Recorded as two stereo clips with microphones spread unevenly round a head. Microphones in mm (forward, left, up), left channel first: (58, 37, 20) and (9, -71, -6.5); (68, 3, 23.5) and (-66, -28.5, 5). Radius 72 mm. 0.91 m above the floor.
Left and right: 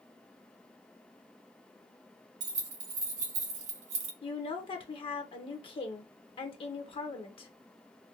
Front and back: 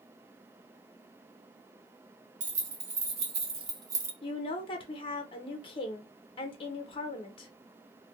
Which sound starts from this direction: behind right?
Keys jangling, at 2.4 s.